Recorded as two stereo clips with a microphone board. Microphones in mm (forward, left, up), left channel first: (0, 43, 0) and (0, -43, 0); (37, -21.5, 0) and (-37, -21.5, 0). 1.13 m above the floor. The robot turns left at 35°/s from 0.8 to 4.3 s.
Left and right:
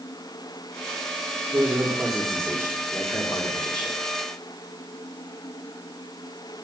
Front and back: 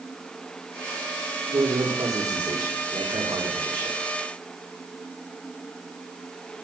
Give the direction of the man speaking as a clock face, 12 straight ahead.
5 o'clock.